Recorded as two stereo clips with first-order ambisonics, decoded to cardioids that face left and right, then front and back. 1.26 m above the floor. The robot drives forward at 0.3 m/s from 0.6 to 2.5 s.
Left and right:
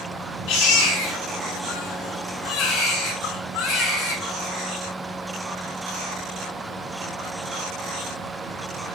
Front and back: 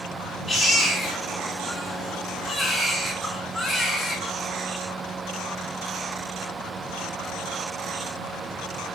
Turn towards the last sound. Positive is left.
turn(degrees=95)